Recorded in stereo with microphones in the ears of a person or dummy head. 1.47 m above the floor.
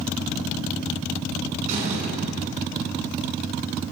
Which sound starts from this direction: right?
A door slam, at 1.7 s.